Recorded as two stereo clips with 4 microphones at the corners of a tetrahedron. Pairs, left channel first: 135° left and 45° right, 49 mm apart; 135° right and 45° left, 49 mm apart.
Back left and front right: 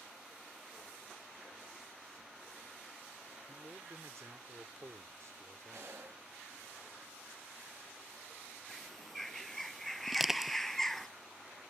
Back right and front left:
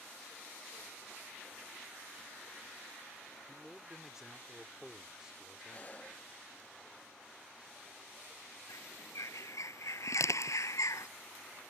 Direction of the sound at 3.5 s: 35° right.